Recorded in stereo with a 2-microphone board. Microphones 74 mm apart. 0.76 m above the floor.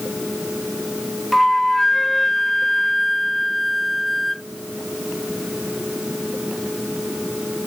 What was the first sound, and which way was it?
A flute, centre (ahead or behind).